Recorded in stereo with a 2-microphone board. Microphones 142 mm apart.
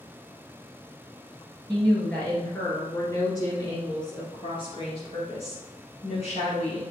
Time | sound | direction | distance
1.7 | a woman speaking | 5° left (ahead or behind) | 1.9 m